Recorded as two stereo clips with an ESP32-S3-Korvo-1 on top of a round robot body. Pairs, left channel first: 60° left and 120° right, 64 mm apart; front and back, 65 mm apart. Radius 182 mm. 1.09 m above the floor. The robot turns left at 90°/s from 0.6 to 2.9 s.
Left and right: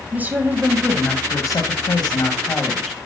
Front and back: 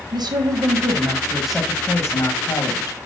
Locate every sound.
0.1 s a woman speaking: 175° left, 1.3 m; by 3.0 s 30° right, 1.3 m